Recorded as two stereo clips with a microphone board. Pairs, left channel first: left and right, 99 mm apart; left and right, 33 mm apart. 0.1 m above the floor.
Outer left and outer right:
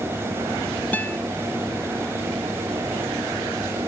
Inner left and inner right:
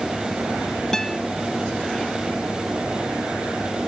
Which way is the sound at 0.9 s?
15° left (ahead or behind).